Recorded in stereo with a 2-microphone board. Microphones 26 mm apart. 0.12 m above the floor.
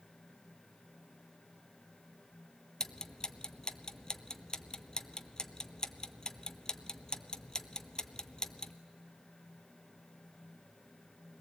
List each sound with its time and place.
2.8 s ticking: 30° left (ahead or behind), 0.7 m